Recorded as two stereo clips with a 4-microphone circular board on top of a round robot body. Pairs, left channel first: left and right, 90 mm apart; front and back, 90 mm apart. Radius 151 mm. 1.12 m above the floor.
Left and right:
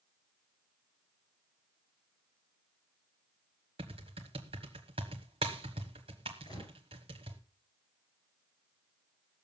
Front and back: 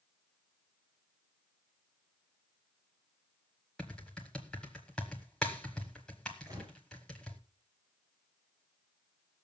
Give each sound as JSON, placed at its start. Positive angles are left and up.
{"t": 3.8, "sound": "typing on a keyboard", "azimuth_deg": -80, "distance_m": 1.0}
{"t": 6.5, "sound": "a gunshot", "azimuth_deg": 125, "distance_m": 6.5}